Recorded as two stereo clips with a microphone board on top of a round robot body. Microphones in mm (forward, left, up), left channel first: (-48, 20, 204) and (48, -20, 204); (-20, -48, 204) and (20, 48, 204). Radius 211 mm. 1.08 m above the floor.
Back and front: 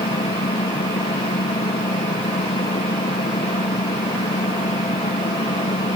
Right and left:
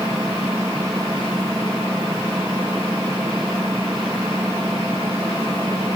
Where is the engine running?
140° left.